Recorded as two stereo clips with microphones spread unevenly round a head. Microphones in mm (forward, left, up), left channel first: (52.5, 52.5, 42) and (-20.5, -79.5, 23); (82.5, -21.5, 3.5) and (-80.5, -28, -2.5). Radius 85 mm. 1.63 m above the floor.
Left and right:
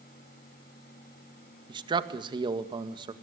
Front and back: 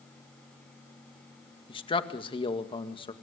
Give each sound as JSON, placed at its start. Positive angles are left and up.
{"t": 1.7, "sound": "a man speaking", "azimuth_deg": -60, "distance_m": 2.0}